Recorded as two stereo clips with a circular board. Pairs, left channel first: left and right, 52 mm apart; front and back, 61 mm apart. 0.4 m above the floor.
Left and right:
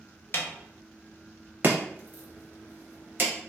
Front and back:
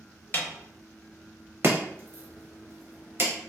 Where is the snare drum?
50° left, 0.6 m.